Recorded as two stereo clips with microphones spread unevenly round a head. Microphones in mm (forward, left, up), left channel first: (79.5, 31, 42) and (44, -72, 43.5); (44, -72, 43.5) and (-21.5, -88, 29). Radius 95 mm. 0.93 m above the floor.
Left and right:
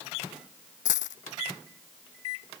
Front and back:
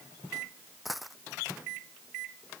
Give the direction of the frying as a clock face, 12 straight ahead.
No frying in this recording.